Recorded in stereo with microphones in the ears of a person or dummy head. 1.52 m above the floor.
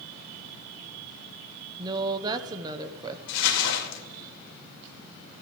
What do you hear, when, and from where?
1.8 s a woman speaking: 25° right (ahead or behind), 0.6 m
3.3 s crumpling: 65° left (ahead or behind), 2 m